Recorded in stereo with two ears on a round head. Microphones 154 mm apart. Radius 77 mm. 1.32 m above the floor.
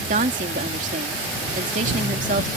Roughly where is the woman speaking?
Right.